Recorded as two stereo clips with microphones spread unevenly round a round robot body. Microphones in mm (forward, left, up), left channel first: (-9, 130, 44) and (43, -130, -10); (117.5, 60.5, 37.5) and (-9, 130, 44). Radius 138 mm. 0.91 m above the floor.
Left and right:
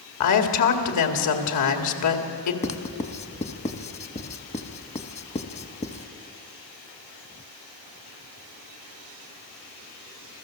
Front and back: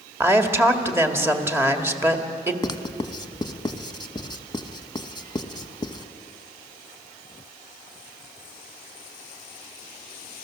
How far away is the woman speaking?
About 2 m.